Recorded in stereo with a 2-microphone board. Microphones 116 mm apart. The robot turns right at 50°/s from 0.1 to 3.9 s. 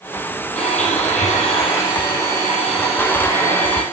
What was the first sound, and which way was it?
A blender, 65° left.